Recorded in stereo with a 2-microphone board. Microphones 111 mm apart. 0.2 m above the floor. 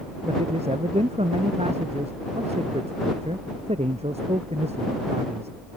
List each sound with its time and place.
0.2 s a man speaking: 70° right (ahead or behind)